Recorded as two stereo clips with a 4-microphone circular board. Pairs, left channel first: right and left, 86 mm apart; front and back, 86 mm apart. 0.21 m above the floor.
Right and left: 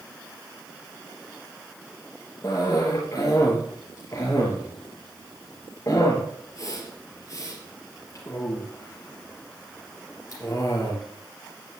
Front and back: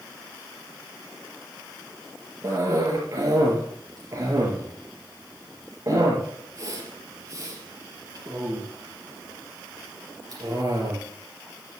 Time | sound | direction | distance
2.4 | a cough | 135° right | 4 m